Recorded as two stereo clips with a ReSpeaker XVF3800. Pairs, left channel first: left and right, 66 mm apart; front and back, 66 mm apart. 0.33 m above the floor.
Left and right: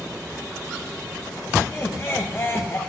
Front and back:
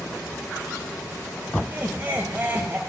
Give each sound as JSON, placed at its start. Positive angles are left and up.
{"t": 1.6, "sound": "laughter", "azimuth_deg": 130, "distance_m": 1.5}